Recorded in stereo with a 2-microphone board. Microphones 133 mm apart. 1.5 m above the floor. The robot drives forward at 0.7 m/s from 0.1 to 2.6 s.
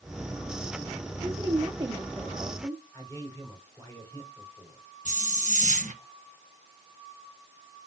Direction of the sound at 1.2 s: 30° right (ahead or behind).